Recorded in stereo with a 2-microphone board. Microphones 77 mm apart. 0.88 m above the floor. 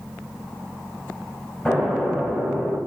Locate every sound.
1.6 s an explosion: 10° left (ahead or behind), 2.5 m